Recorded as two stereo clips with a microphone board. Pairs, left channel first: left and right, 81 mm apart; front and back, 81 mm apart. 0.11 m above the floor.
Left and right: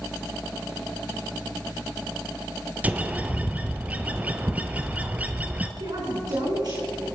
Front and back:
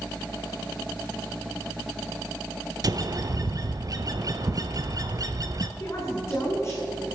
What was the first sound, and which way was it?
A bird, 155° right.